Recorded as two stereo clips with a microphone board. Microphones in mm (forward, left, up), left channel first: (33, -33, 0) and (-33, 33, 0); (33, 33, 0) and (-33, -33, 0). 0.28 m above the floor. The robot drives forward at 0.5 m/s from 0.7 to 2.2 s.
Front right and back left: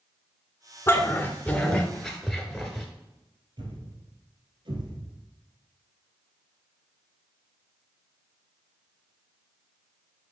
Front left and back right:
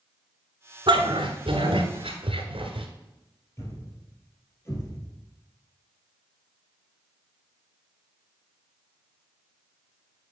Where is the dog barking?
110° right, 1.1 m; by 2.9 s 135° right, 1.5 m.